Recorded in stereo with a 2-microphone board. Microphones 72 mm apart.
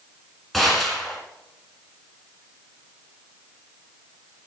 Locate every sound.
0.5 s a gunshot: 5° left (ahead or behind), 2.5 m